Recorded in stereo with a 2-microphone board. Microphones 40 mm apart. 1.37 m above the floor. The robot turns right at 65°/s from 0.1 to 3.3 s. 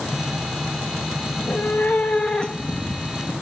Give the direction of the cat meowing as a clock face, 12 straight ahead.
9 o'clock.